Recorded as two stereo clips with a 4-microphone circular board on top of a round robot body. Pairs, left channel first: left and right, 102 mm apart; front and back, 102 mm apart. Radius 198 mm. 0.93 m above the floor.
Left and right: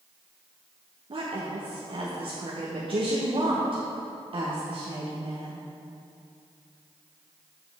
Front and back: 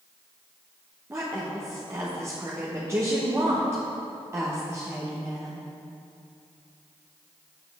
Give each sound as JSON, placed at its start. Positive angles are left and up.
{"t": 1.1, "sound": "a woman speaking", "azimuth_deg": -115, "distance_m": 1.1}